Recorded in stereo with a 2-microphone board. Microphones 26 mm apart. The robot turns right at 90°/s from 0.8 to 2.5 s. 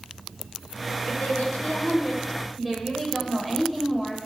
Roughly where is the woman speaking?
Ahead left.